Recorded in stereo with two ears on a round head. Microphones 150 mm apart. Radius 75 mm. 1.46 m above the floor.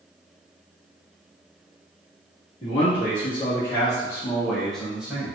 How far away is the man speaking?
About 1.8 m.